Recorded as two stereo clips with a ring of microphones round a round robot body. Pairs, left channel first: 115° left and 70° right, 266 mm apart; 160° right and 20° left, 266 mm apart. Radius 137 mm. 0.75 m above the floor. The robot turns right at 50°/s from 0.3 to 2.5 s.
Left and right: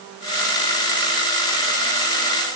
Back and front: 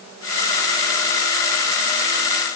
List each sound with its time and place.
Only background noise.